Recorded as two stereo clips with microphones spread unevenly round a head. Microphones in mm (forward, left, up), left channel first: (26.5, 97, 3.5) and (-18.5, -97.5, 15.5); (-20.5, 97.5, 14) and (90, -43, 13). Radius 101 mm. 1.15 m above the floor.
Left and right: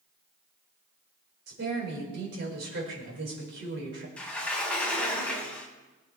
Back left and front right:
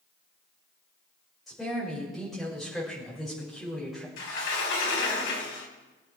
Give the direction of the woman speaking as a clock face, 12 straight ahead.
5 o'clock.